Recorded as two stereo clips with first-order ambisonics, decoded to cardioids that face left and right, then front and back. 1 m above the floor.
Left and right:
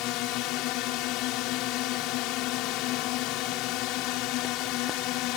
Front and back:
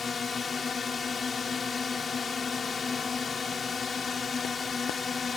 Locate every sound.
0.0 s a drone: 70° left